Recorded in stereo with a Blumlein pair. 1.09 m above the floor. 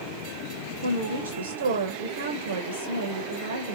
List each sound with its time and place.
0.8 s a woman speaking: 65° right, 0.6 m